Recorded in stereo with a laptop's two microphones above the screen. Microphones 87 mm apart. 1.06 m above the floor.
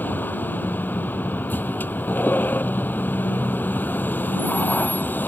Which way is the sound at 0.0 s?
20° left (ahead or behind).